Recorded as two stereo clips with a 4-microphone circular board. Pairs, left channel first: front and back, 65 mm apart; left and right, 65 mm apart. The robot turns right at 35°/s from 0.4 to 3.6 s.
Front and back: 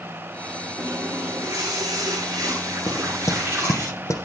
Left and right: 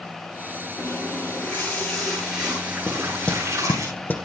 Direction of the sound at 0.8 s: 135° left.